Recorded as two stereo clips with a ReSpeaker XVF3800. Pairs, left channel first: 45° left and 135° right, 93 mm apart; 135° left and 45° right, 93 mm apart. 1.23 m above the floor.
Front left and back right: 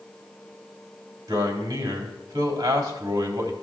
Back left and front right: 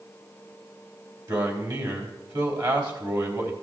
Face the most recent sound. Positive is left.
turn(degrees=-80)